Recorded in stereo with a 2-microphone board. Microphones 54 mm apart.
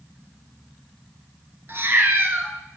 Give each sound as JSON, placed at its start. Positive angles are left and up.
{"t": 1.7, "sound": "a cat meowing", "side_deg": -45, "distance_m": 1.0}